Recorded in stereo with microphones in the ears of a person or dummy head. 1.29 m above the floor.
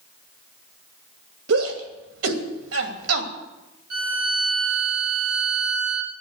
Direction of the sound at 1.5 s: 80° right.